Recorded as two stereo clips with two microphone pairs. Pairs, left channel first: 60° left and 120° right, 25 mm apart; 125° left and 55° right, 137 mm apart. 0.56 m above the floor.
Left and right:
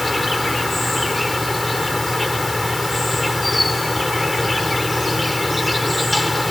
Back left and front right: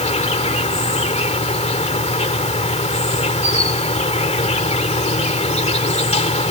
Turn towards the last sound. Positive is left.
turn(degrees=150)